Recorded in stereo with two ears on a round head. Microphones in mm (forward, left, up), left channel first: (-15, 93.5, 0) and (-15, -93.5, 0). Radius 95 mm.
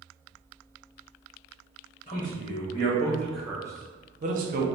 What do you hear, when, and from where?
2.1 s a man speaking: 35° left (ahead or behind), 1.2 m; by 4.7 s 45° right (ahead or behind), 0.9 m